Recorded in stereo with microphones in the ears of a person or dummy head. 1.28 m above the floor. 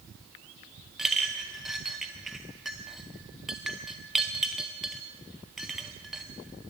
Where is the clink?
5° right (ahead or behind), 0.7 m.